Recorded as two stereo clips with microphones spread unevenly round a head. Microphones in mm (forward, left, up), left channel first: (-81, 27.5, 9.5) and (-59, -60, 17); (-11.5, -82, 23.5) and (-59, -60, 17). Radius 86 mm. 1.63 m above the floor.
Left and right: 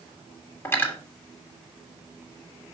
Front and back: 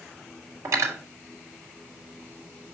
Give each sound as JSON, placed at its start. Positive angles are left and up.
{"t": 0.7, "sound": "cutlery clinking", "azimuth_deg": 165, "distance_m": 2.0}